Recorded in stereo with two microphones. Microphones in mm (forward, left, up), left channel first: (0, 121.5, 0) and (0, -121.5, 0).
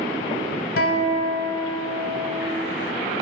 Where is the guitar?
65° left (ahead or behind), 0.9 m.